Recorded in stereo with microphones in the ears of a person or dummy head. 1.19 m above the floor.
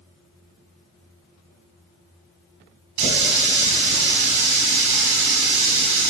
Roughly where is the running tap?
Right.